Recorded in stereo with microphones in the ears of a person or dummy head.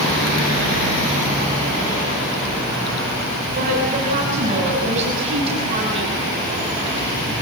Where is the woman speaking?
45° right (ahead or behind), 7 m; by 6.2 s 30° right (ahead or behind), 7 m.